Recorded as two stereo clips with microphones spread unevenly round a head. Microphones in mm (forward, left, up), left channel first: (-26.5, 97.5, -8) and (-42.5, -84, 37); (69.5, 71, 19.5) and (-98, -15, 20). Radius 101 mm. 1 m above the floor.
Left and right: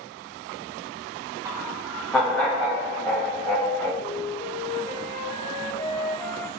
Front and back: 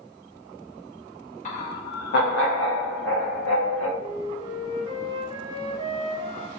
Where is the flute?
165° left, 0.7 m.